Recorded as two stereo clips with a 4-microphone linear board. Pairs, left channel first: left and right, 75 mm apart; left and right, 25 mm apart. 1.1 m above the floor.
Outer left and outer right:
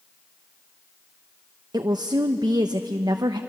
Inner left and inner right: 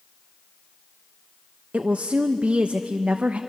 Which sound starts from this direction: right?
A woman speaking, at 1.7 s.